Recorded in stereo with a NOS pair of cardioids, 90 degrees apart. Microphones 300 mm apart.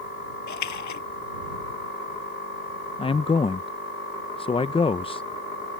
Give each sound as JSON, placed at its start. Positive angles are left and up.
{"t": 0.5, "sound": "a splash", "azimuth_deg": 65}
{"t": 3.0, "sound": "a man speaking", "azimuth_deg": 15}